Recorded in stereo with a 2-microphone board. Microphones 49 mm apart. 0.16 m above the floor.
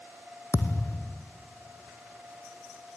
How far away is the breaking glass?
No breaking glass in this recording.